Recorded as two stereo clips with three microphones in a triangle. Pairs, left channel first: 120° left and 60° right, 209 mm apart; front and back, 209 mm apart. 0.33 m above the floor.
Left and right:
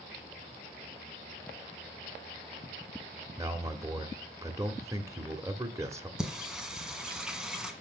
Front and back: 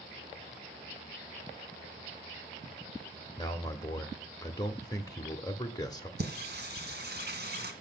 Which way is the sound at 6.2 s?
145° right.